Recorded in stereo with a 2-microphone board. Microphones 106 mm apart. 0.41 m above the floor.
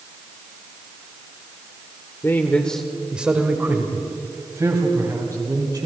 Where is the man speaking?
25° left (ahead or behind), 1.3 m; by 5.9 s 35° right (ahead or behind), 4 m.